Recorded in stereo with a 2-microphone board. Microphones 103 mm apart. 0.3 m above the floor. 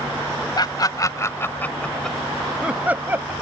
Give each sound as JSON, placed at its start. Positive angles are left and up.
{"t": 0.6, "sound": "laughter", "side_deg": 40}